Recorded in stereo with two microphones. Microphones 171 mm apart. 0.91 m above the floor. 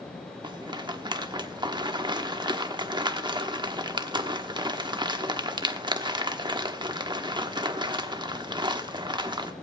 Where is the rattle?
25° right (ahead or behind), 1.1 m.